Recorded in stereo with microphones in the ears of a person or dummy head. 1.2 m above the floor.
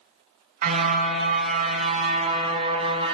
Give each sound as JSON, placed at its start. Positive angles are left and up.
{"t": 0.6, "sound": "a car horn", "side_deg": -50, "distance_m": 5.5}